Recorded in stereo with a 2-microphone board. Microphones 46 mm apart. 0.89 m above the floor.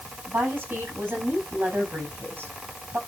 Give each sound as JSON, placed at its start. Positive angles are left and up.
{"t": 0.3, "sound": "a woman speaking", "side_deg": -45, "distance_m": 7.0}